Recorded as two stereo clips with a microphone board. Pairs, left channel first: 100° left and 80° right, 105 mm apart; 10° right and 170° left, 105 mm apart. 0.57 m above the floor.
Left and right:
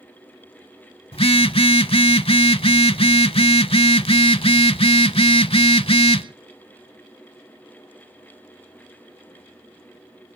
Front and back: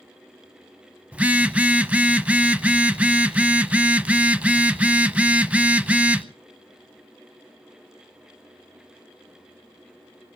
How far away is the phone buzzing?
About 0.6 m.